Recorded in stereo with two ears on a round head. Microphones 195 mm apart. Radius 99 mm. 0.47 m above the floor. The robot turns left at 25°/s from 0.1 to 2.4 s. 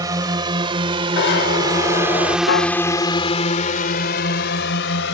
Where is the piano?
60° left (ahead or behind).